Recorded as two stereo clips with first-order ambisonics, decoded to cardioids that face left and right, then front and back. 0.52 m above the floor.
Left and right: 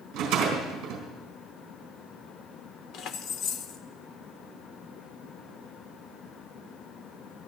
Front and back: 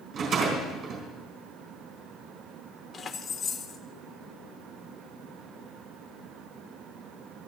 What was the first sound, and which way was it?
A rattle, 125° right.